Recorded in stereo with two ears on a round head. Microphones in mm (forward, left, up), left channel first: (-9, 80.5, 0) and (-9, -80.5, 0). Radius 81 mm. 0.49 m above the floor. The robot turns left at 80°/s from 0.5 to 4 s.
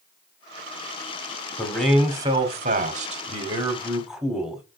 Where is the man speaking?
20° left, 1.5 m; by 4.6 s 175° right, 1.5 m.